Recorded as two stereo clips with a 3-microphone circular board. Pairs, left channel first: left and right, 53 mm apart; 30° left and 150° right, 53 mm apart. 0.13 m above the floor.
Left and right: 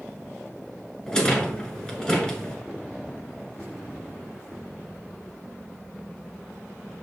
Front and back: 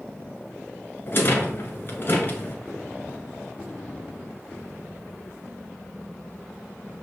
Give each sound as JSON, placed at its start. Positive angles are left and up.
{"t": 1.1, "sound": "a rattle", "azimuth_deg": 25, "distance_m": 1.1}